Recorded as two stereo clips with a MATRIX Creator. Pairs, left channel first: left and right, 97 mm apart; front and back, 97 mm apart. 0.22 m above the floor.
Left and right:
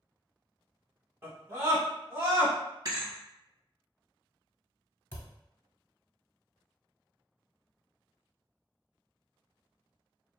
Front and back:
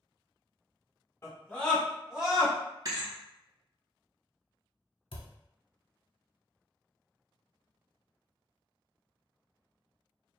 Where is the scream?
40° right, 1.2 m; by 2.5 s 130° right, 1.3 m.